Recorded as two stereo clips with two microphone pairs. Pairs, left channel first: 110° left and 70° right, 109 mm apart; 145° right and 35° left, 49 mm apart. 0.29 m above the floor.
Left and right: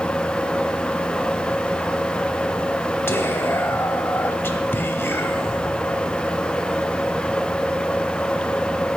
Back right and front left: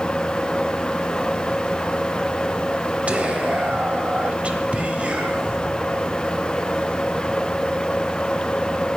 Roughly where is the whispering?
Ahead left.